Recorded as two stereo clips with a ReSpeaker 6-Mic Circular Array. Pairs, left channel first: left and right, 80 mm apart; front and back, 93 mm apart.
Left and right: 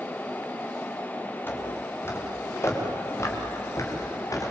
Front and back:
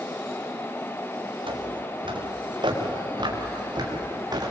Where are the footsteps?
155° left, 5 m; by 4.5 s 135° left, 6.5 m.